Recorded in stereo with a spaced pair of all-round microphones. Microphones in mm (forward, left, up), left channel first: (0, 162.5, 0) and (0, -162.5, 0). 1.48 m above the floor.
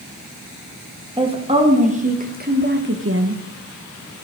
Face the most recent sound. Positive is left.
turn(degrees=-50)  # may be behind; listen again after turning